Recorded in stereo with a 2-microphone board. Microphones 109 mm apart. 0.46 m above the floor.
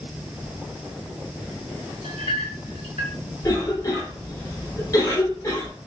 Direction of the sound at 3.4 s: 30° left (ahead or behind).